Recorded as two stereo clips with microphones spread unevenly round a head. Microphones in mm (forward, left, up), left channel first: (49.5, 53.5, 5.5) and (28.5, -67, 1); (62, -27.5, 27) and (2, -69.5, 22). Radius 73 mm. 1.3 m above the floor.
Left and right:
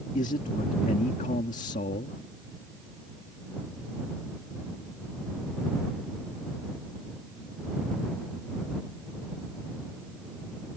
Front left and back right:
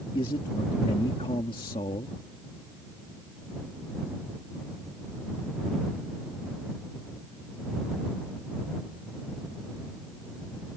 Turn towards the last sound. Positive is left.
turn(degrees=60)